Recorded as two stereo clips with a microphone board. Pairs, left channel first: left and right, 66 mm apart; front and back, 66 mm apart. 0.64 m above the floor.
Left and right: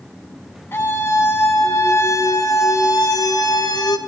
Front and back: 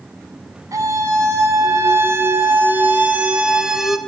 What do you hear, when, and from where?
0.7 s a scream: 145° left, 6.5 m; by 4.0 s 90° left, 3 m